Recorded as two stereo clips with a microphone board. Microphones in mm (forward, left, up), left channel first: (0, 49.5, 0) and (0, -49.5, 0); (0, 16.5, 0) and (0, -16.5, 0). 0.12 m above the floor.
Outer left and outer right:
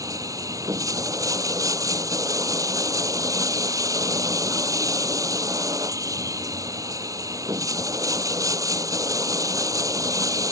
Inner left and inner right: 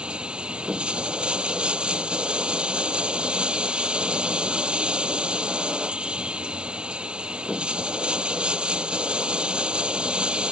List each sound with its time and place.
0.0 s running water: 35° right (ahead or behind)